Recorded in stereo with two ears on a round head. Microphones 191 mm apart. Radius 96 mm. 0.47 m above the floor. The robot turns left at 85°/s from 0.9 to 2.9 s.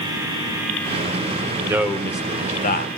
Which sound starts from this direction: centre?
A man speaking, at 1.7 s.